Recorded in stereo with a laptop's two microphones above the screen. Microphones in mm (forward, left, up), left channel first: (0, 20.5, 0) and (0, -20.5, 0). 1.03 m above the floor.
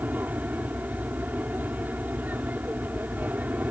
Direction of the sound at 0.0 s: 45° right (ahead or behind).